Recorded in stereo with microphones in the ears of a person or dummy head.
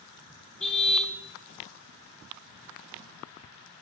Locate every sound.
0.6 s a car horn: 5° left (ahead or behind), 4 m